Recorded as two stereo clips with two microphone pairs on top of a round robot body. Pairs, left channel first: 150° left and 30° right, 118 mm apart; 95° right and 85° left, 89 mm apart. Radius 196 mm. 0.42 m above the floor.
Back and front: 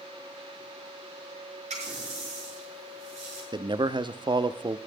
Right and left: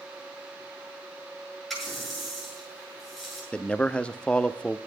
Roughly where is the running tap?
Ahead.